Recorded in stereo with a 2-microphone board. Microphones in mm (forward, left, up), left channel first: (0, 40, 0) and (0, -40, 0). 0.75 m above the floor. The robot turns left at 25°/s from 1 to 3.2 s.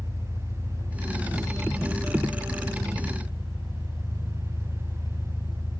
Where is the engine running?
130° left, 2.5 m; by 5.8 s 75° left, 2.5 m.